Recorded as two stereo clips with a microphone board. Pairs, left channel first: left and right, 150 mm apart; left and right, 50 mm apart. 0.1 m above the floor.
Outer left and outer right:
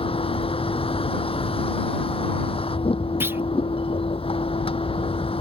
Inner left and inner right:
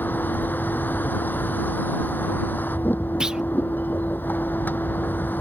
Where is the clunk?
15° right (ahead or behind).